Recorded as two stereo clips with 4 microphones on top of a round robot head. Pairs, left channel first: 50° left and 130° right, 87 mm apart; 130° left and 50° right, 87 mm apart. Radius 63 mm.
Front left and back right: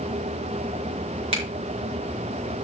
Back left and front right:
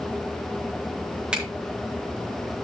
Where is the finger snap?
130° right, 5 m.